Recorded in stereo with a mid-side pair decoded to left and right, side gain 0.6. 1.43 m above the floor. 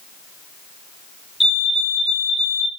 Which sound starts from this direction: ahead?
A fire alarm, at 1.4 s.